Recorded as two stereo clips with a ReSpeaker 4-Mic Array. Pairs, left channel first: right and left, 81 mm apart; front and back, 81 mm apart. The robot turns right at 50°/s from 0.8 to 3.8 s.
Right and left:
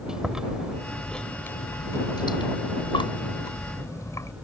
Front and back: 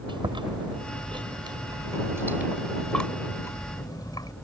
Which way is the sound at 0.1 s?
170° left.